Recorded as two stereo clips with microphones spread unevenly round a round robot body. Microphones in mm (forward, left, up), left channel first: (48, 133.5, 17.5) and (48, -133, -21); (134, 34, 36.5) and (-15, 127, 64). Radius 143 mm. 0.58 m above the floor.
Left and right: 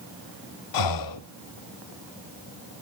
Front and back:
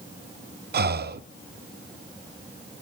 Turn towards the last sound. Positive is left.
turn(degrees=110)